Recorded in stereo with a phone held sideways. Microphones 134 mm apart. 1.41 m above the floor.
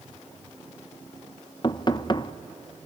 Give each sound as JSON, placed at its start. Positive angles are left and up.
{"t": 1.6, "sound": "knocking", "side_deg": 35, "distance_m": 0.6}